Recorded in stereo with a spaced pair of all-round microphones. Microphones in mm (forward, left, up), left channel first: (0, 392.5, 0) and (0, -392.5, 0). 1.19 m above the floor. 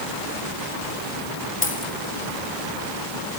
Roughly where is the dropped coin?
Centre.